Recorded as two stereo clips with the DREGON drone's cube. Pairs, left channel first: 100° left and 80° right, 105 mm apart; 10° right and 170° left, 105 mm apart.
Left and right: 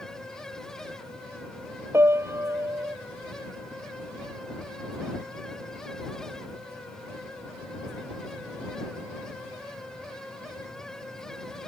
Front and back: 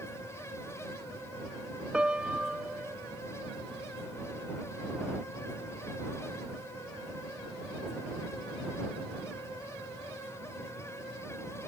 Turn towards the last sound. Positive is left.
turn(degrees=-115)